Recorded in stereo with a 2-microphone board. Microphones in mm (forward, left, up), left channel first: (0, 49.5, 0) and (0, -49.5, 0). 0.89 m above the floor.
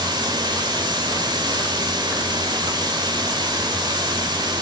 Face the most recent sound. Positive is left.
turn(degrees=-45)  # may be behind; listen again after turning